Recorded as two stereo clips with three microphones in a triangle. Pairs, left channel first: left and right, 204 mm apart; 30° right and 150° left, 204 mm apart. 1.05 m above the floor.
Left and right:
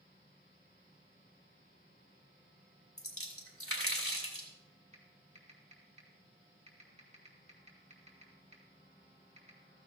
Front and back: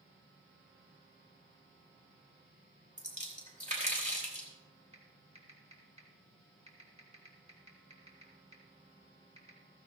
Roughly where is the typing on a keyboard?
Behind right.